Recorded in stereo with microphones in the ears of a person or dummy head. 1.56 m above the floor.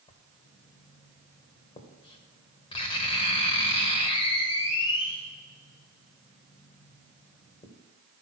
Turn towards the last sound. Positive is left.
turn(degrees=30)  # may be behind; listen again after turning